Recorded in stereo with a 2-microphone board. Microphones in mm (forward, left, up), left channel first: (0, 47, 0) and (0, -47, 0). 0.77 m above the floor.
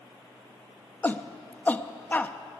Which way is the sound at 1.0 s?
20° left (ahead or behind).